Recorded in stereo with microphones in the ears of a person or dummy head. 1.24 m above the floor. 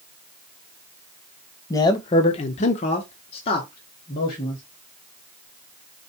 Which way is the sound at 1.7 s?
20° left (ahead or behind).